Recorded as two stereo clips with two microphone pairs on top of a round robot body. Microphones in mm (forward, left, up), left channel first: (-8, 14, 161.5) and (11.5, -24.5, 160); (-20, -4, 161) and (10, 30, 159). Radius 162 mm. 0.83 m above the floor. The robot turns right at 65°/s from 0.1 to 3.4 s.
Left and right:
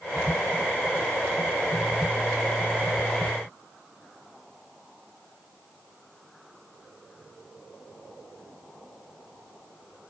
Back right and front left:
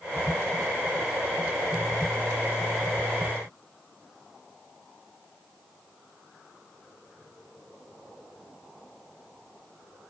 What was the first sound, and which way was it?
Only background noise.